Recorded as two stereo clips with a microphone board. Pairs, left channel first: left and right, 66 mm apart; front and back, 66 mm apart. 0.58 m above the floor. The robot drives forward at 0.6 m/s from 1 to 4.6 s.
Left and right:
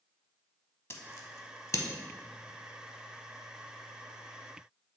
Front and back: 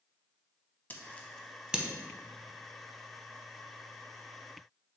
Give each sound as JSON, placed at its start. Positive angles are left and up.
{"t": 0.9, "sound": "scissors", "azimuth_deg": 50, "distance_m": 0.6}